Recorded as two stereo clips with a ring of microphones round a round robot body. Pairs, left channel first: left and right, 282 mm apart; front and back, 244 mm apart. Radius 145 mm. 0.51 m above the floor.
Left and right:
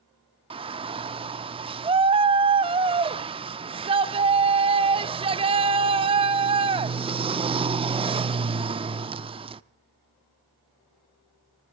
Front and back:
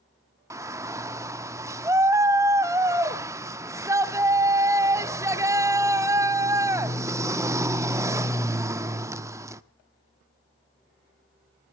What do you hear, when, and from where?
0.5 s a shout: 120° right, 0.7 m